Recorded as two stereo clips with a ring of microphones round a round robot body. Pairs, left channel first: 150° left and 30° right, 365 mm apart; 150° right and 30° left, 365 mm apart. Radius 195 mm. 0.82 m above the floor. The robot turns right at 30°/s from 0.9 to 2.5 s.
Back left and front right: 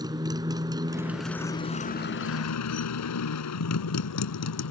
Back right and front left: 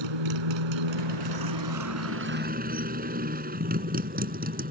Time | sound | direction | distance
0.0 | a motorcycle | 50° left | ?